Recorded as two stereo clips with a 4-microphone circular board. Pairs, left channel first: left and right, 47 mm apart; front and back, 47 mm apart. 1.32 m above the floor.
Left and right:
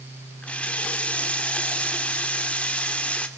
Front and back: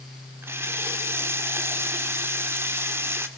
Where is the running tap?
150° left, 2.5 m.